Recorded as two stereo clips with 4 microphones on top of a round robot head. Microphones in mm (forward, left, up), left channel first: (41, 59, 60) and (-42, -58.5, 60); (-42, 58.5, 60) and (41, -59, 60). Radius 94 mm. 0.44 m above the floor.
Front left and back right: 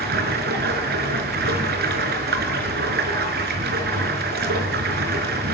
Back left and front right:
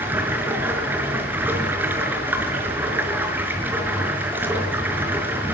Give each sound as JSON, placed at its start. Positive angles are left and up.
{"t": 0.0, "sound": "running water", "azimuth_deg": -135, "distance_m": 4.5}